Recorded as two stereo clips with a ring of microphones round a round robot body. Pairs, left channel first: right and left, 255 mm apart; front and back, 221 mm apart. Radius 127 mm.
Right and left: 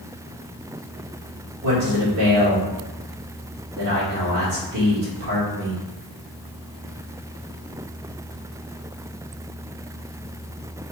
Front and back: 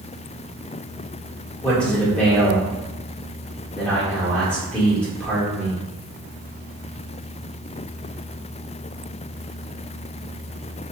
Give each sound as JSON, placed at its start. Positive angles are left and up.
{"t": 1.6, "sound": "a man speaking", "azimuth_deg": 85, "distance_m": 1.9}